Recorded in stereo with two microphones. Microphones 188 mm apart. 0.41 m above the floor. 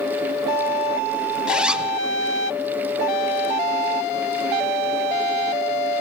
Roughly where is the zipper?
Centre.